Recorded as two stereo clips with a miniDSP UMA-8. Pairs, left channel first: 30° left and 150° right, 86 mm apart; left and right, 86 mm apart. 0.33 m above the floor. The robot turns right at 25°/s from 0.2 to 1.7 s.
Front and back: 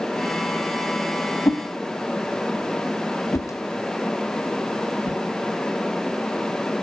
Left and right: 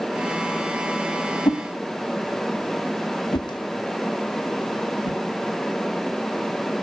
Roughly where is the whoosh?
Left.